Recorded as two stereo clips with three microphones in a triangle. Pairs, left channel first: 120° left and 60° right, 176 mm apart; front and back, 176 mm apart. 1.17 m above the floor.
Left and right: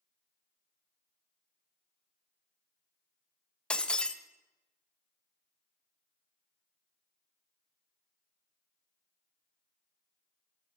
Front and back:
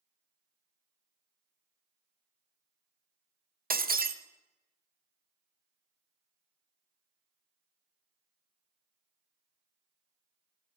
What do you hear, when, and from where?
3.7 s breaking glass: 155° right, 0.5 m